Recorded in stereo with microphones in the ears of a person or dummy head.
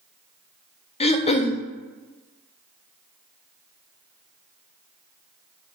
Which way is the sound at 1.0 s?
30° left (ahead or behind).